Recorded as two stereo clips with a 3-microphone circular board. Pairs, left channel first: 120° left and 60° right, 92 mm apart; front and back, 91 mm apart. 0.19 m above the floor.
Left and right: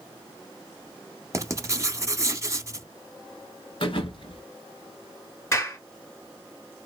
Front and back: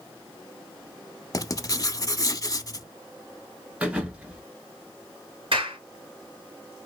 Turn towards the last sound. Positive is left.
turn(degrees=180)